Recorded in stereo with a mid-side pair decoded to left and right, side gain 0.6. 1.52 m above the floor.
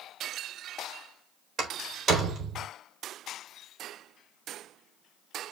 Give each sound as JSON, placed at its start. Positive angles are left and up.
{"t": 1.6, "sound": "a door slam", "azimuth_deg": -40, "distance_m": 4.0}